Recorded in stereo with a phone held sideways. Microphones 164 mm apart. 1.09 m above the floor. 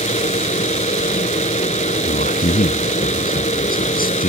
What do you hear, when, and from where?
0.0 s a fan: 45° left (ahead or behind)
2.0 s a man speaking: 60° left (ahead or behind)